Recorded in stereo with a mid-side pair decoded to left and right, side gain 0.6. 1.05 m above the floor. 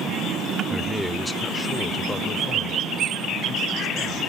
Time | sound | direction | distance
0.7 | a man speaking | 5° right | ?